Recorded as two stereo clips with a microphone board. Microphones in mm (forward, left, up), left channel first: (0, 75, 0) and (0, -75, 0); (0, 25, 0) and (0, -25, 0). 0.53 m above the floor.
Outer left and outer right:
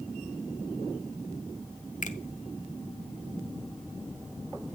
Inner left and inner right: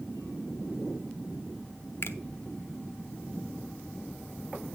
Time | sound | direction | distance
2.0 | a finger snap | 60° left (ahead or behind) | 0.9 m